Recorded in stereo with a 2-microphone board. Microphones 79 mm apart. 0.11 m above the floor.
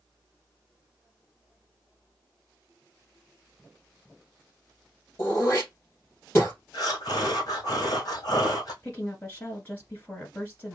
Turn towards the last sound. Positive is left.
turn(degrees=25)  # may be behind; listen again after turning